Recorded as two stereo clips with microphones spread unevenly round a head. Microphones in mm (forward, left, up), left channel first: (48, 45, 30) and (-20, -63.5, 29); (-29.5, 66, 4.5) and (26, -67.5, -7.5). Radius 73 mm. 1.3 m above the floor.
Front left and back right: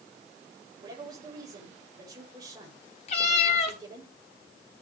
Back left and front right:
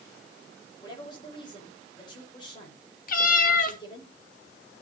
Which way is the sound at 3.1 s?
100° left.